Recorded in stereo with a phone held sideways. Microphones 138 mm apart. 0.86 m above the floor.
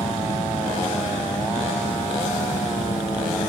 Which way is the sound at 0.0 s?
80° left.